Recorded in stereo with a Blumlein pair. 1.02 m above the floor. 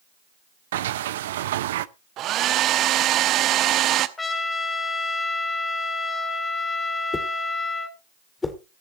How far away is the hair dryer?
About 0.9 m.